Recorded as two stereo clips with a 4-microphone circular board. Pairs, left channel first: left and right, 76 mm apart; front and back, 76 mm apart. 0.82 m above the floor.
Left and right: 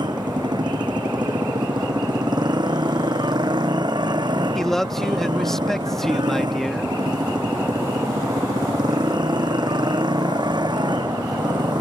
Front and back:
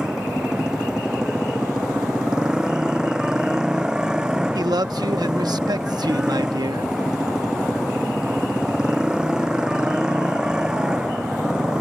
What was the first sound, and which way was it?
A motorcycle, 100° right.